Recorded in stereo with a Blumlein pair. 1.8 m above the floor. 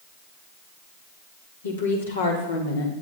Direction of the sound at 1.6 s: 70° left.